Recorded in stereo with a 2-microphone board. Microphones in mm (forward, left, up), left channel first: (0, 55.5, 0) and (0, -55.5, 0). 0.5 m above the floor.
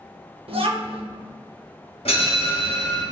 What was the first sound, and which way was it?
A child speaking, 60° right (ahead or behind).